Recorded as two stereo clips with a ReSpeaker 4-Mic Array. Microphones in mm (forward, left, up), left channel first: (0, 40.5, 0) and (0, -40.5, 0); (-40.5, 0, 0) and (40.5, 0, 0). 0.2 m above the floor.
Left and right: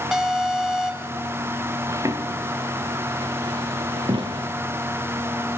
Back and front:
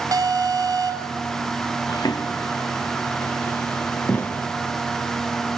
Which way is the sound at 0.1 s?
5° right.